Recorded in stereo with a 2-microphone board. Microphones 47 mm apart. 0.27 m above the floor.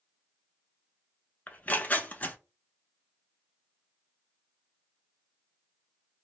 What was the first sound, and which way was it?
Tearing paper, 35° left (ahead or behind).